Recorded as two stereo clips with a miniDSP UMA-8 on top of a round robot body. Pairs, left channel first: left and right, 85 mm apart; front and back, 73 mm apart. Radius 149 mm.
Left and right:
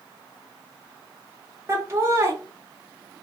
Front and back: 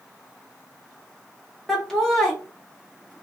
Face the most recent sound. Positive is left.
turn(degrees=-85)